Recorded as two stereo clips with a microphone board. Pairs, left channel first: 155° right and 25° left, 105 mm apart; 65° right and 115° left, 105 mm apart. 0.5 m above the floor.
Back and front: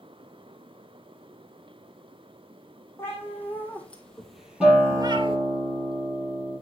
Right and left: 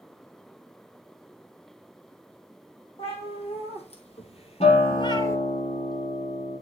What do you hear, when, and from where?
3.0 s a cat meowing: 90° right, 3.5 m; by 5.4 s straight ahead, 1.1 m
4.6 s a guitar: 65° right, 4.5 m